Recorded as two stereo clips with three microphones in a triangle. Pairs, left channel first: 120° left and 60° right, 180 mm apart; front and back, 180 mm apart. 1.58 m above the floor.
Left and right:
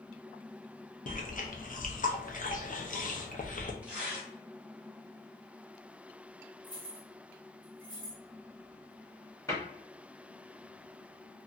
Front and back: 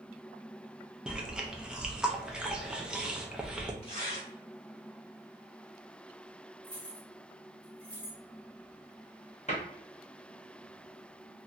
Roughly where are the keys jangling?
Left.